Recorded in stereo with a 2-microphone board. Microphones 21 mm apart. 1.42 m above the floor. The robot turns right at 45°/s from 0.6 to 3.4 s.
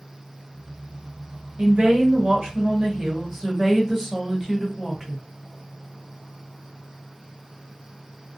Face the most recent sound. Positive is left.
turn(degrees=-15)